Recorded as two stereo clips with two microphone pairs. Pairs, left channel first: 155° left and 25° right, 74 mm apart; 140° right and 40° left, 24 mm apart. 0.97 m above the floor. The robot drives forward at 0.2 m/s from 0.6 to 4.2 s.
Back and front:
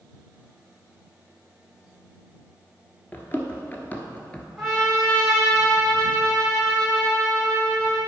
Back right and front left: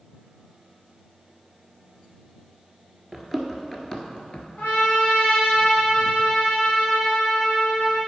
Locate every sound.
3.1 s running footsteps: 125° left, 1.1 m; by 4.5 s 135° right, 1.1 m
4.6 s a trumpet: 120° right, 2.5 m